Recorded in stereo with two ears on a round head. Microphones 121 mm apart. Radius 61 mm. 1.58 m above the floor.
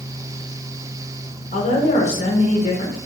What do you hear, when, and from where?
1.5 s a woman speaking: 50° left (ahead or behind), 1.7 m